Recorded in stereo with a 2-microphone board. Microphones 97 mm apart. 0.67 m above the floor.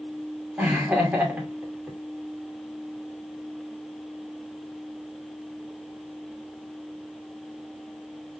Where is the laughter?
15° right (ahead or behind), 2.5 m.